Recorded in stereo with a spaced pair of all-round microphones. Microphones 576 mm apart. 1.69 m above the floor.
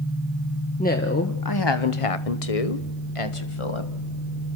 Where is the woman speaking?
15° left (ahead or behind), 1.6 m; by 3.9 s 50° left (ahead or behind), 2.5 m.